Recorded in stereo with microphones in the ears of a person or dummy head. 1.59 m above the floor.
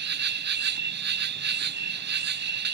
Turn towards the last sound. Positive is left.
turn(degrees=-50)  # may be behind; listen again after turning